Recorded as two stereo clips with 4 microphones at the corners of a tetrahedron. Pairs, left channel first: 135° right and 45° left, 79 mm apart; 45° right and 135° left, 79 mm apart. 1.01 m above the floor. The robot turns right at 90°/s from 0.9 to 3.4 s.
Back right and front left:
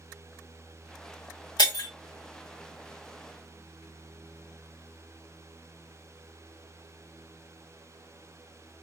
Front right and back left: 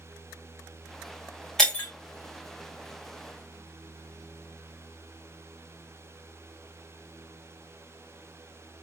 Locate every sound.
1.6 s breaking glass: 130° right, 1.5 m; by 1.9 s 100° right, 1.5 m